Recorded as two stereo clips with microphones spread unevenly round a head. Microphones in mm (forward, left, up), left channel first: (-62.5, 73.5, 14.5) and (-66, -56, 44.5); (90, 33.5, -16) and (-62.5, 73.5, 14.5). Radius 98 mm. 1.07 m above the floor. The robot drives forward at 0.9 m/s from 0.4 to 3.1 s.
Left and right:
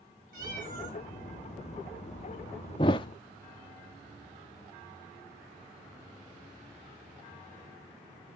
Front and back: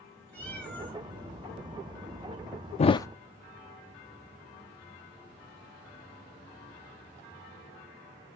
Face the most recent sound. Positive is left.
turn(degrees=65)